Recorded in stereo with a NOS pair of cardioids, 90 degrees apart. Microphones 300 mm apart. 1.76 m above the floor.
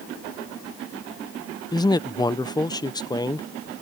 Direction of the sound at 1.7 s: 15° left.